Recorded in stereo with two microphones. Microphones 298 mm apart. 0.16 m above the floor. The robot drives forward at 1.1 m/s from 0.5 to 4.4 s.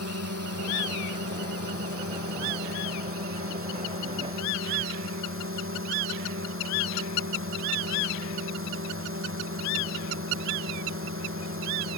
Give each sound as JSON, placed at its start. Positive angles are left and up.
{"t": 0.0, "sound": "a drone", "side_deg": -50}